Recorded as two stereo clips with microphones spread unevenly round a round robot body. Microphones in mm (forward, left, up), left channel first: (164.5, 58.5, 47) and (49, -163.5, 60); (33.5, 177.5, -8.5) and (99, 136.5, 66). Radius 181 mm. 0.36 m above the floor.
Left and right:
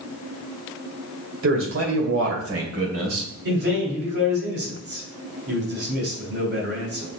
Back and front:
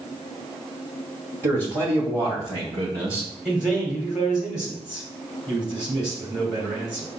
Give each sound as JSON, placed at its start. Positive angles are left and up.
{"t": 1.4, "sound": "a man speaking", "azimuth_deg": -135, "distance_m": 1.9}
{"t": 3.5, "sound": "a man speaking", "azimuth_deg": -160, "distance_m": 2.0}